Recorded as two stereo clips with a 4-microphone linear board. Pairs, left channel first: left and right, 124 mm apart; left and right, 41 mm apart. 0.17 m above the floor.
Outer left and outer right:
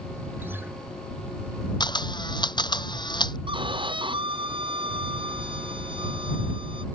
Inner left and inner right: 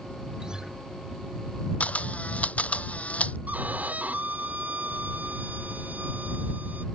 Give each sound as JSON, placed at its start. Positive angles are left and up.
{"t": 0.4, "sound": "a guitar", "side_deg": -15}
{"t": 1.8, "sound": "a camera shutter", "side_deg": 35}
{"t": 3.5, "sound": "a violin", "side_deg": -40}